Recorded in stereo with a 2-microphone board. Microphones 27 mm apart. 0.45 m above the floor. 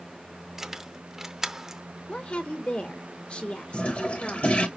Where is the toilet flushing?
55° left (ahead or behind), 1.3 m.